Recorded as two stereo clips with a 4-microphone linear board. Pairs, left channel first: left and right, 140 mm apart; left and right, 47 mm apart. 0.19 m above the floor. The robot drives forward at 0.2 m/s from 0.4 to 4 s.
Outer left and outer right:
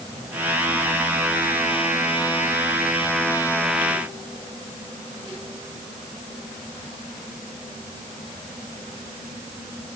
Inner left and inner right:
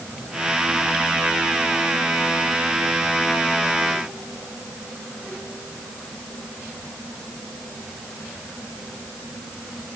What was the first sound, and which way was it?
Only background noise.